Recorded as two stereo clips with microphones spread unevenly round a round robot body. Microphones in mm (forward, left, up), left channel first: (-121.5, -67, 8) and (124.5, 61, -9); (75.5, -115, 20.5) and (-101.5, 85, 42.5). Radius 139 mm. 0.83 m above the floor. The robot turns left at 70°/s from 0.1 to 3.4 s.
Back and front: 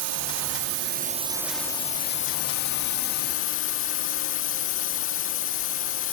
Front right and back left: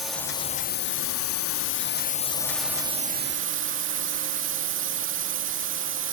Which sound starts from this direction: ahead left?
A drone, at 0.0 s.